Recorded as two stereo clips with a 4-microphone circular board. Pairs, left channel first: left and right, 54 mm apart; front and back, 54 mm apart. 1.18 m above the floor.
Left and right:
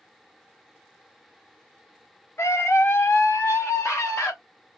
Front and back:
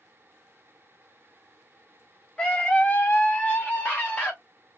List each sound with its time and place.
2.4 s a scream: 70° left, 1.1 m; by 4.3 s 60° left, 2.5 m